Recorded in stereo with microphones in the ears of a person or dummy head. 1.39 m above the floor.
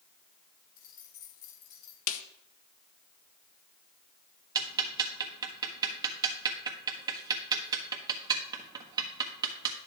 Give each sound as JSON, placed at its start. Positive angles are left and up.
{"t": 0.8, "sound": "keys jangling", "side_deg": 45, "distance_m": 3.0}
{"t": 2.1, "sound": "a snare drum", "side_deg": 75, "distance_m": 1.0}
{"t": 4.5, "sound": "ticking", "side_deg": -25, "distance_m": 1.4}